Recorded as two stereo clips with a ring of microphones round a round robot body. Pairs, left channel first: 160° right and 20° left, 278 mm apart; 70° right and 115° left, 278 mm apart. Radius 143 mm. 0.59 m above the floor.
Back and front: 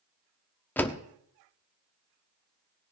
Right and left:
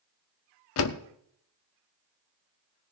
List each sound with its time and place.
0.8 s a door slam: 75° right, 0.9 m